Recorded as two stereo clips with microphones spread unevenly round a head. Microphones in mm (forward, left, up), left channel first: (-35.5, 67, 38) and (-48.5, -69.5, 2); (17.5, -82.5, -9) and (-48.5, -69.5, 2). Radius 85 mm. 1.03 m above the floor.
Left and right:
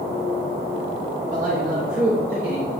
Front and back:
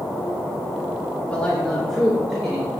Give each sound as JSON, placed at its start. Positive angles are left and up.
{"t": 1.3, "sound": "a man speaking", "azimuth_deg": -80, "distance_m": 1.8}